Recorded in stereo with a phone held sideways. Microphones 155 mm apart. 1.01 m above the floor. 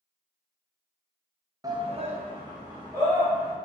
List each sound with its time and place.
1.6 s a shout: 25° right (ahead or behind), 0.6 m; by 3.5 s 20° right (ahead or behind), 2 m